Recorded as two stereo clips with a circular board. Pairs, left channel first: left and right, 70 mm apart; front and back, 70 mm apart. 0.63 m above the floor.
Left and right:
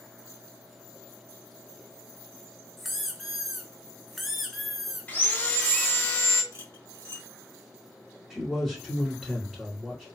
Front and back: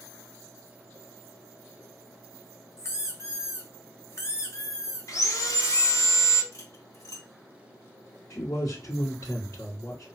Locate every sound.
2.8 s a squeak: 5° left, 0.7 m
5.1 s sawing: 30° left, 0.8 m
6.5 s cutlery clinking: 35° right, 1.3 m
8.3 s a man speaking: 5° left, 1.8 m